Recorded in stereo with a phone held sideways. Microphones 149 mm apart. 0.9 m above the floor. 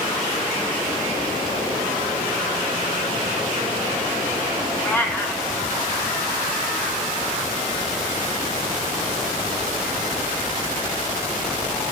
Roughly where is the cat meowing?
Centre.